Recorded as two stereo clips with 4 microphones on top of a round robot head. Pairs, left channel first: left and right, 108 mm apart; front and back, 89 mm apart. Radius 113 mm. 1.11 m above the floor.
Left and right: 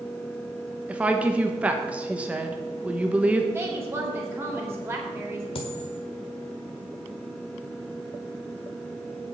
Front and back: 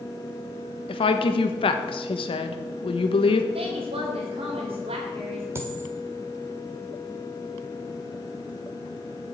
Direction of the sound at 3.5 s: 160° right.